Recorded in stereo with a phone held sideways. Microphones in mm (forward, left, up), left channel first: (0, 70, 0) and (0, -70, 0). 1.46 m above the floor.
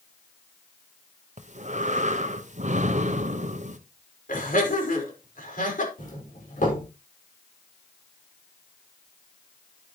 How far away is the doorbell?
About 5.5 m.